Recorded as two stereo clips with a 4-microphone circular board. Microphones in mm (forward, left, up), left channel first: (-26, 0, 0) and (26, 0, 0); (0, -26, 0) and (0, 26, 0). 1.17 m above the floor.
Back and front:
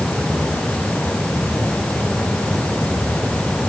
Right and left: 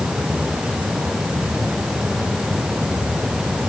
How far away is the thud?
No thud in this recording.